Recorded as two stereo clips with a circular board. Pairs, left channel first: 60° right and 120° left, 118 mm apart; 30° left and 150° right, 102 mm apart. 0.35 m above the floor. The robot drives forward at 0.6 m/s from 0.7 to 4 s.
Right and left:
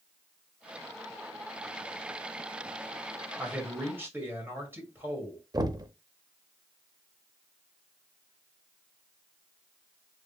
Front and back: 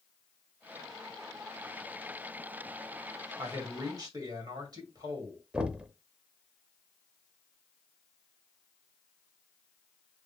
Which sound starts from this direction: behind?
A man speaking, at 3.4 s.